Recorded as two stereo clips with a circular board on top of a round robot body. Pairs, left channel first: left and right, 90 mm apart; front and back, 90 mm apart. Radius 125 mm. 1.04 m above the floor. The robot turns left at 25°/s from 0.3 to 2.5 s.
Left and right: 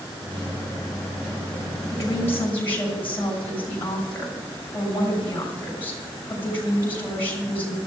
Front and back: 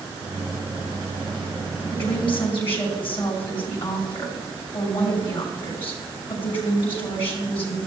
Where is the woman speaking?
35° left, 6.5 m; by 7.8 s 20° left, 6.5 m.